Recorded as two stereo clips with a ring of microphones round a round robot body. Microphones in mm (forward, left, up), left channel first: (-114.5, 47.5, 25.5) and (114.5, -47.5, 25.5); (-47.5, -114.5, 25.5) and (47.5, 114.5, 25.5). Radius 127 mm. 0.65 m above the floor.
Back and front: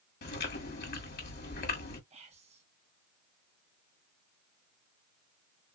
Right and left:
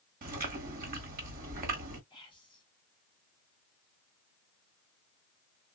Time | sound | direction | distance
0.2 | chewing | 115° left | 1.4 m
2.1 | whispering | 60° right | 1.0 m